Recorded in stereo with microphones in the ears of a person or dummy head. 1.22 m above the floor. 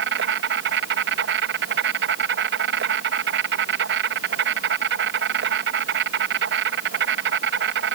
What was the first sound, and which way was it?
An insect, 65° right (ahead or behind).